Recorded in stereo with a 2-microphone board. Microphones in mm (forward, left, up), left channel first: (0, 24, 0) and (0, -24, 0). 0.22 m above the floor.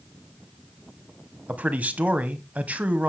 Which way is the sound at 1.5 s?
30° right (ahead or behind).